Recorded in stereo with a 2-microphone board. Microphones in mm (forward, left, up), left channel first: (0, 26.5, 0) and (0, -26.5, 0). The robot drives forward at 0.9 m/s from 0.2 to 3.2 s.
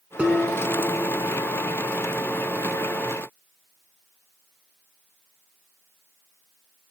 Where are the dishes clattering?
20° right (ahead or behind), 3 m; by 1.3 s 15° right (ahead or behind), 4 m.